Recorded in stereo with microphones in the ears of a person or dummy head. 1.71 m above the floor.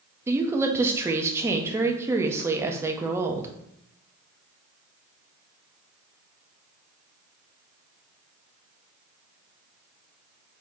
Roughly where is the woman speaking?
Centre.